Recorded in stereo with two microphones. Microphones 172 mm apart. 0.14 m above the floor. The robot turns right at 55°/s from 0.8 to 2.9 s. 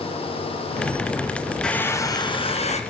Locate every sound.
1.6 s a hair dryer: 5° left, 1.2 m; by 2.8 s 70° left, 1.2 m